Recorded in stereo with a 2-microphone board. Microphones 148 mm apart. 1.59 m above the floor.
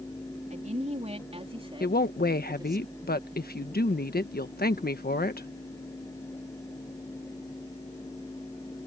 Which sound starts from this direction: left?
A woman speaking, at 1.8 s.